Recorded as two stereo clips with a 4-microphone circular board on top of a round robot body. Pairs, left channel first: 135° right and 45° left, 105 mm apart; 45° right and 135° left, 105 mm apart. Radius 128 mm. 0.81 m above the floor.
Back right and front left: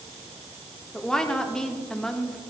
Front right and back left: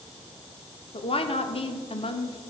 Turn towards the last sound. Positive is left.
turn(degrees=-50)